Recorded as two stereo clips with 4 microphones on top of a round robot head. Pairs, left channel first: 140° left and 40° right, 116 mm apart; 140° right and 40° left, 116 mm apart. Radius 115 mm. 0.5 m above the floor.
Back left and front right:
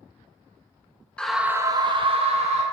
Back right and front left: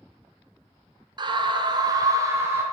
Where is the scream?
60° left, 1.1 m; by 2.6 s 25° right, 2 m.